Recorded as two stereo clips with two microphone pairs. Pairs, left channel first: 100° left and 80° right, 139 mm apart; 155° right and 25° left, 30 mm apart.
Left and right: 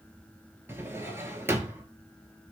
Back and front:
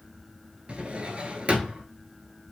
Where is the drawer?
10° right, 0.6 m.